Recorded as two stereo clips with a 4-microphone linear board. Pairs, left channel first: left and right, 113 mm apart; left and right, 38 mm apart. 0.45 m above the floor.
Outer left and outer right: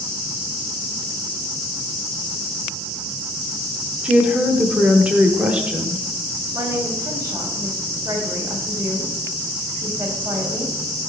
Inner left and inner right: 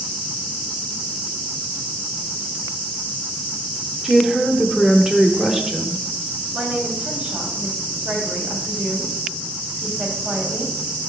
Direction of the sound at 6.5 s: 30° right (ahead or behind).